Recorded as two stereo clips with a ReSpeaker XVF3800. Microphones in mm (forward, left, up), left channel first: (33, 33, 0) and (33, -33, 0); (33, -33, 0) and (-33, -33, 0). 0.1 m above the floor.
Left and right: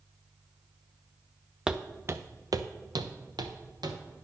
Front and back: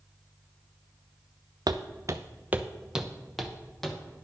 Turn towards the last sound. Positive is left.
turn(degrees=-85)